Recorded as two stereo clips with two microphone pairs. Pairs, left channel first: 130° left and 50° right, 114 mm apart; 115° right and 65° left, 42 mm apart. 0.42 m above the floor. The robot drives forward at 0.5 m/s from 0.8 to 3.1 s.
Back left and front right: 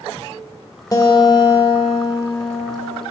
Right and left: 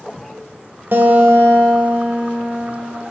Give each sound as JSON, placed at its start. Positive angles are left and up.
{"t": 0.9, "sound": "a guitar", "azimuth_deg": 80, "distance_m": 1.2}